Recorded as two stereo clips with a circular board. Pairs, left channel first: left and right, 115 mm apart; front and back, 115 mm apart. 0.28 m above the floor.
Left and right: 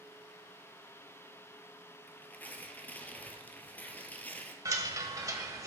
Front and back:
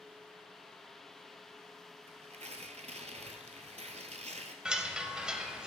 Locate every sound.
2.1 s tearing paper: 165° left, 0.9 m
4.7 s a chime: 105° right, 0.8 m